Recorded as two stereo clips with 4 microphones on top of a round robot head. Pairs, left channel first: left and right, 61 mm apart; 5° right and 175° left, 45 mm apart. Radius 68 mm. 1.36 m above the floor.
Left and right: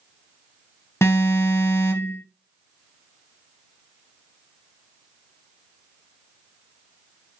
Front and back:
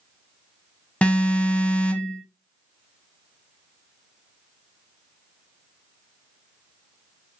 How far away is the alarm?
About 1.6 m.